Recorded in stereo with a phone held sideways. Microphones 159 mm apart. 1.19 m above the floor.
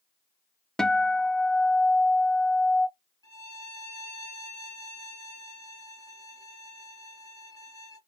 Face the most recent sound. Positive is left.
turn(degrees=20)  # may be behind; listen again after turning